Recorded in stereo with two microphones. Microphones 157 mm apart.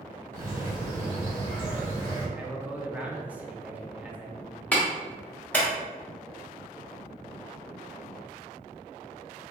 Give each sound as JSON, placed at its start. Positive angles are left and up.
{"t": 0.3, "sound": "a bird", "side_deg": -55, "distance_m": 1.9}
{"t": 2.4, "sound": "a man speaking", "side_deg": -10, "distance_m": 0.6}
{"t": 4.7, "sound": "a clap", "side_deg": 10, "distance_m": 1.1}